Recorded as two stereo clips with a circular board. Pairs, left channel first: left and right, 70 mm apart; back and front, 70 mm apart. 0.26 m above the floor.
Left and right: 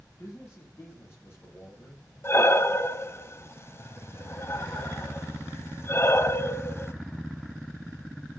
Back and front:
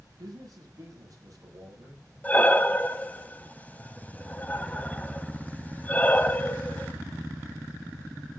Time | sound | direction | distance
0.2 | a man speaking | 35° left | 7 m
2.2 | breathing | 125° left | 1.0 m